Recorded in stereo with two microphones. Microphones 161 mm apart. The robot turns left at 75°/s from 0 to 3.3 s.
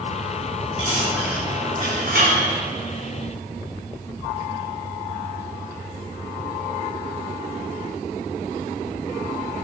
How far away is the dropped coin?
About 3 m.